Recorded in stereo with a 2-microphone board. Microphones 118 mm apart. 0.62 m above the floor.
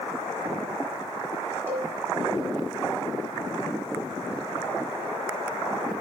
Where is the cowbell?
15° right (ahead or behind), 5 m.